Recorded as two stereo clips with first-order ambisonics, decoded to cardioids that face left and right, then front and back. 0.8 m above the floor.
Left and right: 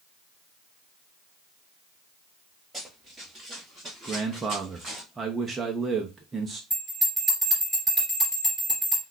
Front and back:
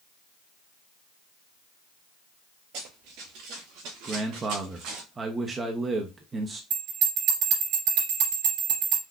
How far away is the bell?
About 3 m.